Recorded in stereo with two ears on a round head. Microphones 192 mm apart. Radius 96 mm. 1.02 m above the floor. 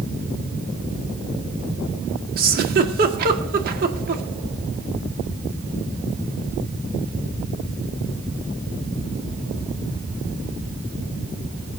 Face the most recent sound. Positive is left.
turn(degrees=-45)  # may be behind; listen again after turning